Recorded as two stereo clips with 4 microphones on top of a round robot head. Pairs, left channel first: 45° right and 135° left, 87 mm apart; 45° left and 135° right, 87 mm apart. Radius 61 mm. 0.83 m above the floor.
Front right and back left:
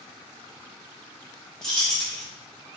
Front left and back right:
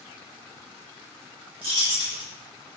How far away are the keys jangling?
About 1.0 m.